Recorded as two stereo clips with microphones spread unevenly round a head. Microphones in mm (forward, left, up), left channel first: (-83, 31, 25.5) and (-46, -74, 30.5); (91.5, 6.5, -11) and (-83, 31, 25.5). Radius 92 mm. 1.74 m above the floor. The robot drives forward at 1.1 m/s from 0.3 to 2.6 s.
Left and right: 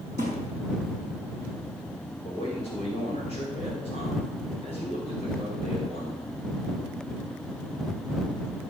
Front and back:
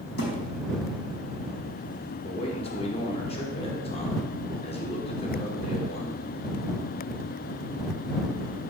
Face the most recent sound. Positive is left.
turn(degrees=50)